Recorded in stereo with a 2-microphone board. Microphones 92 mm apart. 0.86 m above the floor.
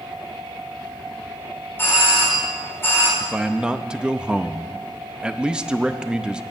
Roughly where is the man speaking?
Centre.